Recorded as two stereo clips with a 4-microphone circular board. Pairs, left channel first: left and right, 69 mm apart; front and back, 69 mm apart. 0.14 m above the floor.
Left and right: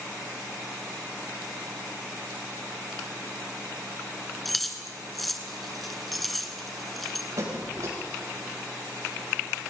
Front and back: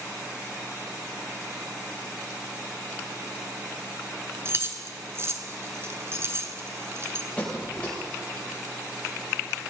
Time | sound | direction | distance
4.5 | keys jangling | straight behind | 1.3 m
7.4 | a squeak | 70° right | 7.5 m